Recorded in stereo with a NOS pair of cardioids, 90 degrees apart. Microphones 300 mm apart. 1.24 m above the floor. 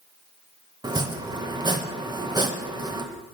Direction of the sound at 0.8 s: 15° right.